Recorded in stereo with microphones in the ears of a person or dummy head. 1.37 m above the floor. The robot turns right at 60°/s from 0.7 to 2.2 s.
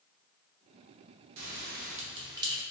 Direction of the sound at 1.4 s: 65° right (ahead or behind).